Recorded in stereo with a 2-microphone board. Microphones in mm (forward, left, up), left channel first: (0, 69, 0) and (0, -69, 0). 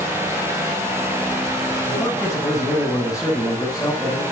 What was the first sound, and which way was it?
A man speaking, 25° left (ahead or behind).